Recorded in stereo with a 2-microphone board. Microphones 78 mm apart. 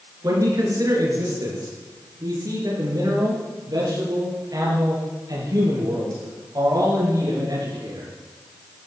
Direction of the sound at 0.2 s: 50° right (ahead or behind).